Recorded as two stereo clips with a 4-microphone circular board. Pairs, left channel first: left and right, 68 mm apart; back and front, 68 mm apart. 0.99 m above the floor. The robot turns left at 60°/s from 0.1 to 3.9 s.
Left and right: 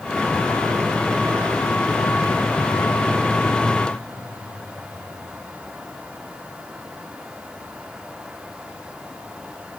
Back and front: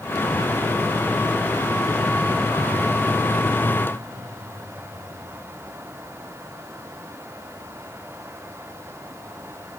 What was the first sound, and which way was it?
Only background noise.